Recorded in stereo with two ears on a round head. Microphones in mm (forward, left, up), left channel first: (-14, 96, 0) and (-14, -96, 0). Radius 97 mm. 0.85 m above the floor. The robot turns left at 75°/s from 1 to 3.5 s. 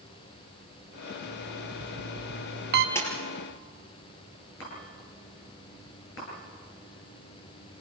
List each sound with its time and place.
1.2 s an alarm clock: 15° right, 1.3 m; by 2.9 s 135° right, 1.3 m
3.0 s a splash: 10° left (ahead or behind), 5 m; by 3.1 s 25° left (ahead or behind), 5 m
4.6 s a chime: 60° left (ahead or behind), 10 m